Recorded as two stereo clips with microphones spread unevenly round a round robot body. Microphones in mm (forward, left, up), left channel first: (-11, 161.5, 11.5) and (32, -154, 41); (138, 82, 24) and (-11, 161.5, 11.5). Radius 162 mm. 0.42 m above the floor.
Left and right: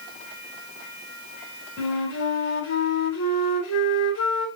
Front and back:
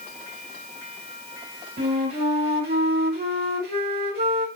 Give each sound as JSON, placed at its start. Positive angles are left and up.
{"t": 1.8, "sound": "a flute", "azimuth_deg": 140, "distance_m": 2.5}